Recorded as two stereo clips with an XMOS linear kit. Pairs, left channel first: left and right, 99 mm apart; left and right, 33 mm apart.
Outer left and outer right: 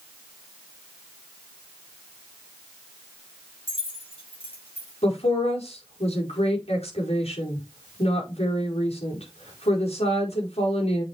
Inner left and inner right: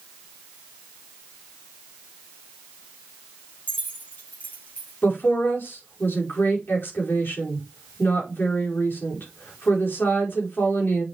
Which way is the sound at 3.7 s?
55° left (ahead or behind).